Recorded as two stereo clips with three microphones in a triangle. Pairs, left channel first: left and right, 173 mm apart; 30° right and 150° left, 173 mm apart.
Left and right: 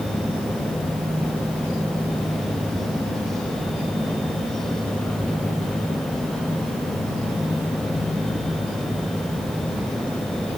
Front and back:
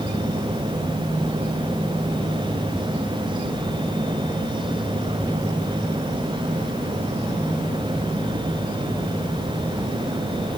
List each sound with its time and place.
Only background noise.